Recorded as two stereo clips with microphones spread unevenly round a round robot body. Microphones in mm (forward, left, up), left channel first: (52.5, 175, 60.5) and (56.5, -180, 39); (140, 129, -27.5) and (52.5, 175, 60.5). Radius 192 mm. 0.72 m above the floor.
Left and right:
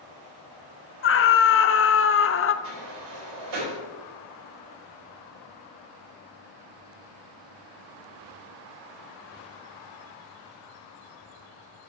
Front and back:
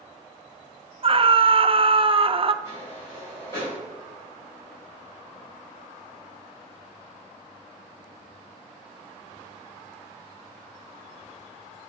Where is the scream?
70° left, 0.7 m.